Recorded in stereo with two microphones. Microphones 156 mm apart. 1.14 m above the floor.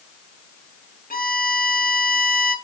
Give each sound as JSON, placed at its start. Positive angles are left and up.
{"t": 1.1, "sound": "a violin", "side_deg": 65, "distance_m": 1.1}